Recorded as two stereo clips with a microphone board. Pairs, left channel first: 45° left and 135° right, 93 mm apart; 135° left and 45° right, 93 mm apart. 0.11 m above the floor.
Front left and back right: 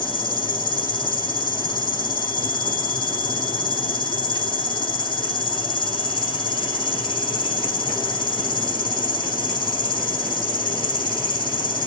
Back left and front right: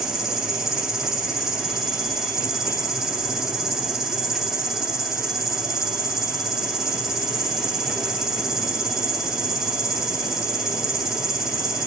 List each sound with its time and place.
0.0 s an insect: 40° left, 0.7 m